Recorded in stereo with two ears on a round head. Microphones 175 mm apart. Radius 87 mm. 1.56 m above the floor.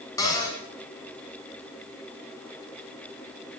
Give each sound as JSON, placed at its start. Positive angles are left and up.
{"t": 0.2, "sound": "a cupboard door", "side_deg": 15, "distance_m": 5.5}